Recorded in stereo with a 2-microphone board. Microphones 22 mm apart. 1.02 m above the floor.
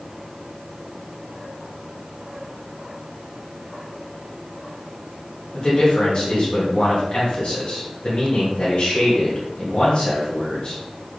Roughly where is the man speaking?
Left.